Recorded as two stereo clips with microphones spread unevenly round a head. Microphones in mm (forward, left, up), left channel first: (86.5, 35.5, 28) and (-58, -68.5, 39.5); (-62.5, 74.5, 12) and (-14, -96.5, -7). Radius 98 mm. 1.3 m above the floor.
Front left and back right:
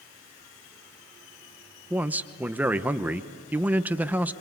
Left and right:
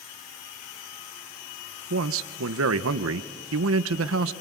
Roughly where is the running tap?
I don't hear a running tap.